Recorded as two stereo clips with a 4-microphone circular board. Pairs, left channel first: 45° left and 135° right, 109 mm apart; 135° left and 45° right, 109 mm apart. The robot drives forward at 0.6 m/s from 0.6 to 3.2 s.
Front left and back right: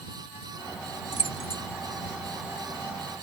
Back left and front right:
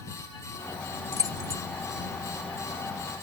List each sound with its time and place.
1.1 s keys jangling: 15° left